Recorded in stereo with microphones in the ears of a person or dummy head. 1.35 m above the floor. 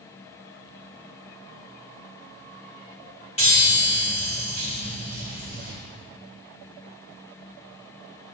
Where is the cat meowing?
I don't hear a cat meowing.